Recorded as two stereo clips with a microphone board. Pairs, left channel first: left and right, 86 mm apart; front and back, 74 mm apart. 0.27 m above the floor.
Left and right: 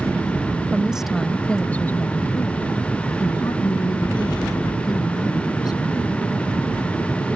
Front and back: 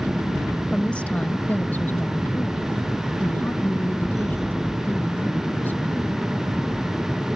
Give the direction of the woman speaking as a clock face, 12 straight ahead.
2 o'clock.